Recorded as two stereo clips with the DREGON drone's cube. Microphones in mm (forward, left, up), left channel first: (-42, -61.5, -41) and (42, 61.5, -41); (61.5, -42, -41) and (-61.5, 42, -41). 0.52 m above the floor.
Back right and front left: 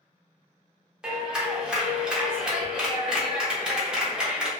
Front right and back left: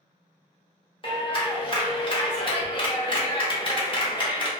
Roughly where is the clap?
Ahead right.